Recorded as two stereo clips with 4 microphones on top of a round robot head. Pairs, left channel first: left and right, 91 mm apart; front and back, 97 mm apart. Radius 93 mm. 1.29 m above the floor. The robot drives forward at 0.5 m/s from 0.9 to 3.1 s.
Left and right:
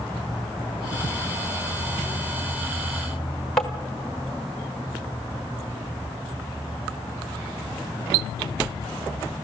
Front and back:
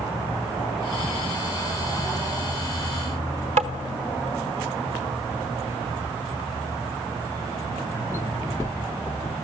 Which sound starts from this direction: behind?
Tapping, at 3.6 s.